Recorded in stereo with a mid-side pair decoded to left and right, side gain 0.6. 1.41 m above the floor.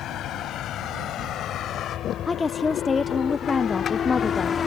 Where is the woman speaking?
25° left.